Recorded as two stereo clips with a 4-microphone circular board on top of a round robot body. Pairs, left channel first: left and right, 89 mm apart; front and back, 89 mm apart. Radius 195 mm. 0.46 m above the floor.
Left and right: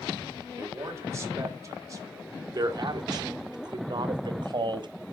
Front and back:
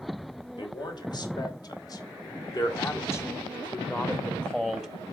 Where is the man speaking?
35° right, 3 m; by 4.9 s 90° right, 1.5 m.